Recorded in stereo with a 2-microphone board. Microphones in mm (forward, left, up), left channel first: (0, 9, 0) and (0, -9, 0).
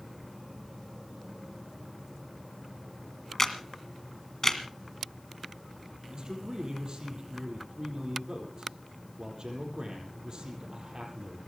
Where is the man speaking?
45° right (ahead or behind), 7.5 m.